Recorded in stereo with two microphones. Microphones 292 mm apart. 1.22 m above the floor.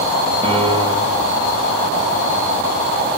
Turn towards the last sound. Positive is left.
turn(degrees=-20)  # may be behind; listen again after turning